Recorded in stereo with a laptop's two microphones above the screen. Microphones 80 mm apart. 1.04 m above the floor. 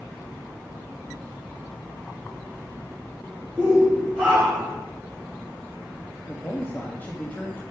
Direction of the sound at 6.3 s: 20° left (ahead or behind).